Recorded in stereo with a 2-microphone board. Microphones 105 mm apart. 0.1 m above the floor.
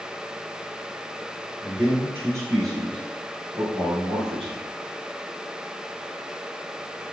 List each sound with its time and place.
1.6 s a man speaking: 5° right (ahead or behind), 1.3 m; by 4.6 s 65° right (ahead or behind), 3 m